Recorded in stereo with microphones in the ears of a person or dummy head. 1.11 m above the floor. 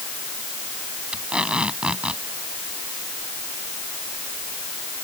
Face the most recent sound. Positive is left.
turn(degrees=-5)  # may be behind; listen again after turning